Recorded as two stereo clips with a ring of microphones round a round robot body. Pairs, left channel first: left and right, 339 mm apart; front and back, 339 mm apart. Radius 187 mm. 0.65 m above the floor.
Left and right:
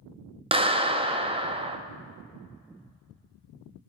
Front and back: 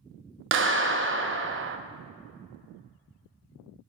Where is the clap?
155° right, 0.6 m.